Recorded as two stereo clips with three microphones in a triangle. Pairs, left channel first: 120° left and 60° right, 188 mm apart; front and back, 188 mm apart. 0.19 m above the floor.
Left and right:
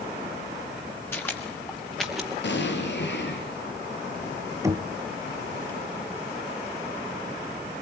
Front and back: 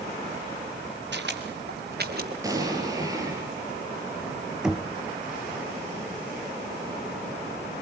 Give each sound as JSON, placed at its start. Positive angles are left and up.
{"t": 1.1, "sound": "footsteps", "azimuth_deg": -160, "distance_m": 4.5}
{"t": 2.4, "sound": "an explosion", "azimuth_deg": 110, "distance_m": 5.0}
{"t": 4.6, "sound": "knocking", "azimuth_deg": -100, "distance_m": 1.2}